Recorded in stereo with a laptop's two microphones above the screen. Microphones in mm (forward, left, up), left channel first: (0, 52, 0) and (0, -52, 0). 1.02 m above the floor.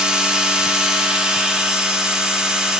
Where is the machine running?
10° right (ahead or behind), 0.7 m.